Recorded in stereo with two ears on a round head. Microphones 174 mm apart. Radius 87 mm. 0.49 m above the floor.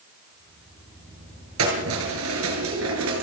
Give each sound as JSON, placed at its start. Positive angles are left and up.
{"t": 1.6, "sound": "keys jangling", "side_deg": -80, "distance_m": 6.5}